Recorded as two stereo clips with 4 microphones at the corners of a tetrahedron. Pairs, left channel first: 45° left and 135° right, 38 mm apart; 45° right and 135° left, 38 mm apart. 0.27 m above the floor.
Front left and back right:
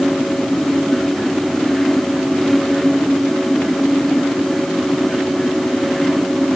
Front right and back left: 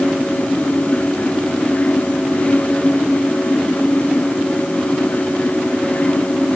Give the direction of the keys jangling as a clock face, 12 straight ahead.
No keys jangling in this recording.